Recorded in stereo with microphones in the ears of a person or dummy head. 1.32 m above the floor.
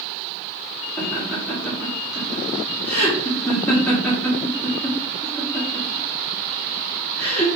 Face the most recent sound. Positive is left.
turn(degrees=15)  # may be behind; listen again after turning